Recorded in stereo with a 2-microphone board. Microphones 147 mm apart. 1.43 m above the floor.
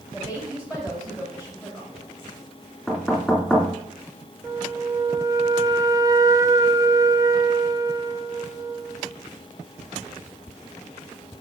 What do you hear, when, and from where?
0.1 s a woman speaking: 15° right (ahead or behind), 2.5 m
2.9 s knocking: 5° right (ahead or behind), 3 m
4.4 s a flute: 20° right (ahead or behind), 0.5 m